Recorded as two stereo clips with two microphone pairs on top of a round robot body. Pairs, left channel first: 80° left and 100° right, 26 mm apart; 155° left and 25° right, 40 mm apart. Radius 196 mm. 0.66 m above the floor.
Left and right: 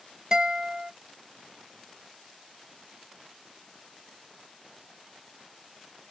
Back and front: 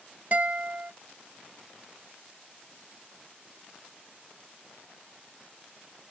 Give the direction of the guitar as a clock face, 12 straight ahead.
2 o'clock.